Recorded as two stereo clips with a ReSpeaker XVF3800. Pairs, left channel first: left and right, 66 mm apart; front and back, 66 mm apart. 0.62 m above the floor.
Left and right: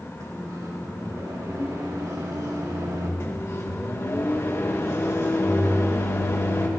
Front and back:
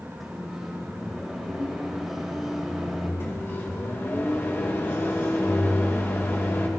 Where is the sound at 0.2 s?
95° right, 3 m.